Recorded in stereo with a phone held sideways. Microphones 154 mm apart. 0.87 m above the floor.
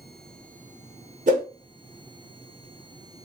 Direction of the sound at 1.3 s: 50° right (ahead or behind).